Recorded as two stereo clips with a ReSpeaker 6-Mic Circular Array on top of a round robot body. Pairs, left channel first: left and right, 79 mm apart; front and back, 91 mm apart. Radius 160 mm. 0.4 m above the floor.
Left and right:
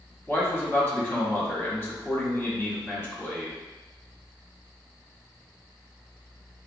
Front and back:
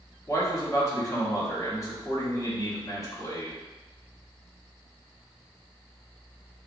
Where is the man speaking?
40° left, 1.4 m.